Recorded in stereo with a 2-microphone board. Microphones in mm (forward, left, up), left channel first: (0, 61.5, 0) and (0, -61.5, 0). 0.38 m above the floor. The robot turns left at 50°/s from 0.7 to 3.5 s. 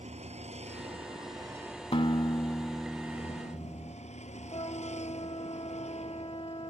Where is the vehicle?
115° right; by 6.7 s 105° left.